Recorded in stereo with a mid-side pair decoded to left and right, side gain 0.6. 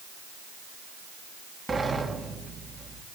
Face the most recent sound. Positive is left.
turn(degrees=-25)